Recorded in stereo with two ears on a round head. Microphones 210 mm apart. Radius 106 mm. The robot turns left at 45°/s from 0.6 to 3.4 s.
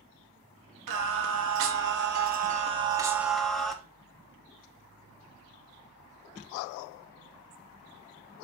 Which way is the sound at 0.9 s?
70° right.